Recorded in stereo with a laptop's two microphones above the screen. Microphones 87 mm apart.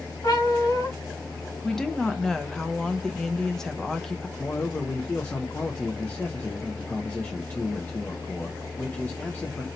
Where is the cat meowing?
60° left (ahead or behind), 2 m.